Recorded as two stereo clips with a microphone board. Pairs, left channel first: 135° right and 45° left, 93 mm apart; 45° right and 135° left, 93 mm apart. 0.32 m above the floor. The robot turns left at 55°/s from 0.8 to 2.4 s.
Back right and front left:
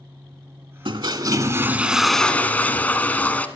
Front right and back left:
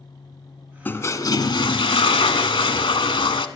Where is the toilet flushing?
25° left, 0.7 m; by 3.5 s 60° right, 0.7 m.